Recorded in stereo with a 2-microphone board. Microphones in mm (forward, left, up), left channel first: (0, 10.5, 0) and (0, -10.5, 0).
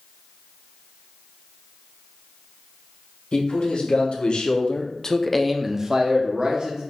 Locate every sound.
3.3 s a man speaking: 75° left (ahead or behind), 1.5 m; by 6.9 s 45° right (ahead or behind), 1.3 m